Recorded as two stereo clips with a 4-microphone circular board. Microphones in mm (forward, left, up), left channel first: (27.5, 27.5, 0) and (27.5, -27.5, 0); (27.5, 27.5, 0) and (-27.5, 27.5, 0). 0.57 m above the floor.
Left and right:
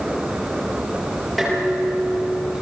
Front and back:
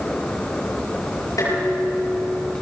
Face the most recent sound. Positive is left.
turn(degrees=-5)